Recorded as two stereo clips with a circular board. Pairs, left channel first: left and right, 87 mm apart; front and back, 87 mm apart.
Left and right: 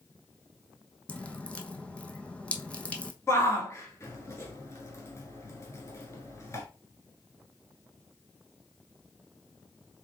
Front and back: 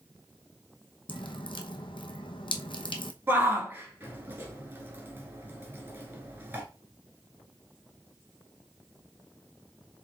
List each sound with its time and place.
1.1 s dripping: 15° left, 0.8 m
3.3 s a shout: 125° left, 1.4 m